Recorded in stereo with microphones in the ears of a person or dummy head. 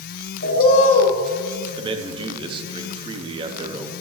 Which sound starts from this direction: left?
A bird, at 0.4 s.